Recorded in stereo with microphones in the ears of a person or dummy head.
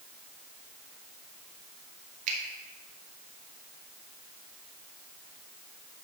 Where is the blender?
I don't hear a blender.